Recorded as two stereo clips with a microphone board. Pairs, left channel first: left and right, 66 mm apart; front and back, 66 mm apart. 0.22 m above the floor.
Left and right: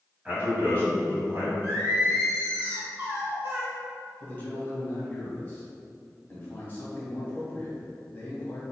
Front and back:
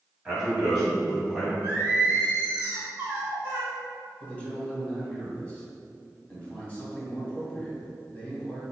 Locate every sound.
0.2 s a man speaking: 115° right, 1.8 m; by 1.5 s 85° right, 2 m
1.6 s singing: 130° right, 1.6 m
4.2 s a man speaking: 55° left, 1.5 m